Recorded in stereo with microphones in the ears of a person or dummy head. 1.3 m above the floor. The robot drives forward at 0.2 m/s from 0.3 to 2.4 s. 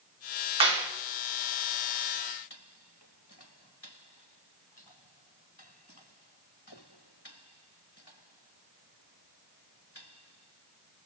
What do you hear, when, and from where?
0.6 s a clap: 30° right (ahead or behind), 1.1 m